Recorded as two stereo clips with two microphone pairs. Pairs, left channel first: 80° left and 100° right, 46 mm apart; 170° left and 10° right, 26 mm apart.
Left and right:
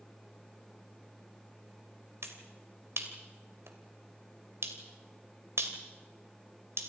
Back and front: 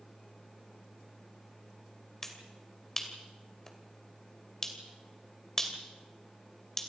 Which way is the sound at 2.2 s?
110° right.